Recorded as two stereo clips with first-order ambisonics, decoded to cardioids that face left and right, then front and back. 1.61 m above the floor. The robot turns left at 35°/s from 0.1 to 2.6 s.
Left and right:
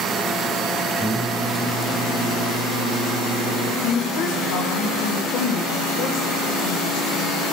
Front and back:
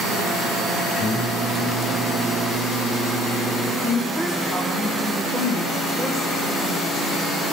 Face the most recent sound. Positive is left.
turn(degrees=85)